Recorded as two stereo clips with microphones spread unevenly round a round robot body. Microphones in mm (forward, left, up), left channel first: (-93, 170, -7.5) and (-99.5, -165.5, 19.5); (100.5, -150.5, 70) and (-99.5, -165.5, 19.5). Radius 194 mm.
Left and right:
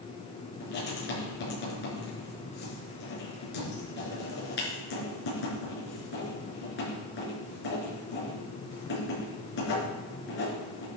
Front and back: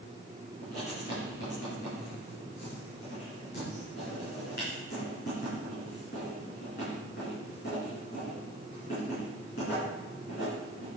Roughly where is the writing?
Ahead left.